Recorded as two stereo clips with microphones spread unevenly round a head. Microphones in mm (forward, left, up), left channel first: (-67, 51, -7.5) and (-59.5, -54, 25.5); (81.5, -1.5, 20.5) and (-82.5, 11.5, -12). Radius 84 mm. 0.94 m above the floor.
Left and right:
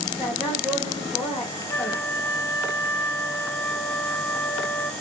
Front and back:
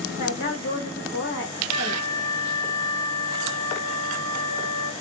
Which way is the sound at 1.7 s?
70° left.